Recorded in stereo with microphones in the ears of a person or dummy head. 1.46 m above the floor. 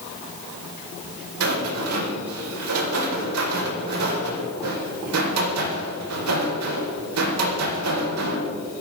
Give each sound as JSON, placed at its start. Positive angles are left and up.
{"t": 1.4, "sound": "a rattle", "side_deg": -85, "distance_m": 4.5}